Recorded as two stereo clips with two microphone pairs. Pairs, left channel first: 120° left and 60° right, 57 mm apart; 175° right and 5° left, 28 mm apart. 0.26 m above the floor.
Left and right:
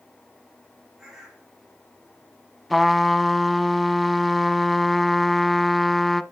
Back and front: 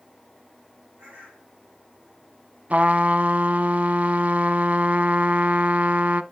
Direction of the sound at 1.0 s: 30° left.